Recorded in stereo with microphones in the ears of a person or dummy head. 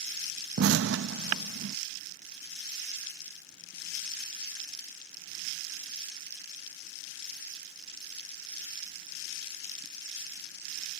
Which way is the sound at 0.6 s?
70° right (ahead or behind).